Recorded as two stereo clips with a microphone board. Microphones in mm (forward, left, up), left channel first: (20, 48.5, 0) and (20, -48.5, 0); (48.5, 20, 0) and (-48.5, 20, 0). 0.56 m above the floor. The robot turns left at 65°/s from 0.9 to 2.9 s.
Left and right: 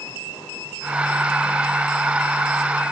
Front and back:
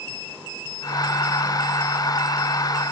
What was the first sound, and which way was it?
Only background noise.